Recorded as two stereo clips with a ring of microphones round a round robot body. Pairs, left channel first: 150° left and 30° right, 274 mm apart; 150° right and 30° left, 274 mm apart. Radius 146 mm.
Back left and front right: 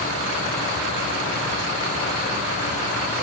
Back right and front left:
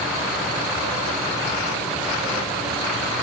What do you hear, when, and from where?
Only background noise.